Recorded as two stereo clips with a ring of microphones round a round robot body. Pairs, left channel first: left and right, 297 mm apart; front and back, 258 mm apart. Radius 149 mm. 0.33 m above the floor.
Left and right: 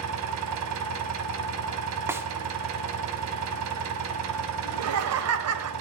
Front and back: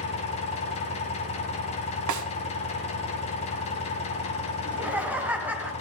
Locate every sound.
0.0 s an engine running: 65° right, 1.9 m
2.1 s a snare drum: 170° right, 1.1 m
4.7 s laughter: 95° right, 1.4 m